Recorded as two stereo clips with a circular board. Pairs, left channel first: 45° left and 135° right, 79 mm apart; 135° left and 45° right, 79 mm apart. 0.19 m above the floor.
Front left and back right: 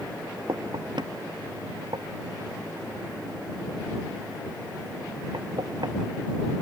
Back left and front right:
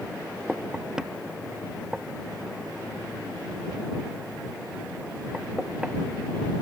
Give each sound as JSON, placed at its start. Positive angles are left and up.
{"t": 0.5, "sound": "knocking", "azimuth_deg": -125}